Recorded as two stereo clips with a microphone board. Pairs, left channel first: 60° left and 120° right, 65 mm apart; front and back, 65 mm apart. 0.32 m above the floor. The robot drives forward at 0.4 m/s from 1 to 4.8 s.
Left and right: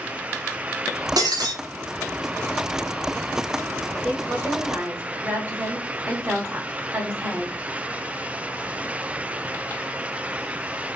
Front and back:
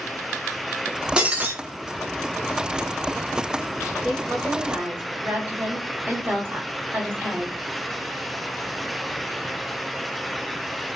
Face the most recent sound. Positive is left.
turn(degrees=-160)